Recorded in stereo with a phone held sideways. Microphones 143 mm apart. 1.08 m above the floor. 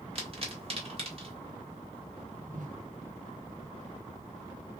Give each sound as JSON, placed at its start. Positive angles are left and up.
{"t": 0.1, "sound": "a pop", "side_deg": -45, "distance_m": 1.6}
{"t": 2.5, "sound": "a whoosh", "side_deg": -65, "distance_m": 1.0}